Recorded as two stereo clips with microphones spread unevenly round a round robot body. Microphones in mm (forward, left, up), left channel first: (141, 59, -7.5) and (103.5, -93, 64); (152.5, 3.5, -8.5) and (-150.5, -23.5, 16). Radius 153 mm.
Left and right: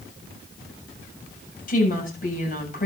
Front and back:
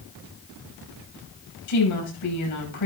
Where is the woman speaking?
40° left, 7 m.